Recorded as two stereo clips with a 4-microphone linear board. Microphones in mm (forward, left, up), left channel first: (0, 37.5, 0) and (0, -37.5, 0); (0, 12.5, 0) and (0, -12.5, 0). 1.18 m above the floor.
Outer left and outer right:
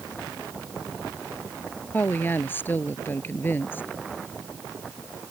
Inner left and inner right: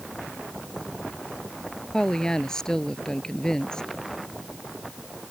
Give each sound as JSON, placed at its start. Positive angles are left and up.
{"t": 1.9, "sound": "a woman speaking", "side_deg": 25}